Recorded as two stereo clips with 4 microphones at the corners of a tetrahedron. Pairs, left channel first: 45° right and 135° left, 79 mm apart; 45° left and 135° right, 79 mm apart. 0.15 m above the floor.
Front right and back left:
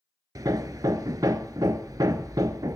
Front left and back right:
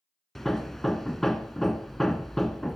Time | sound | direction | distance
0.3 | hammering | 130° left | 0.6 m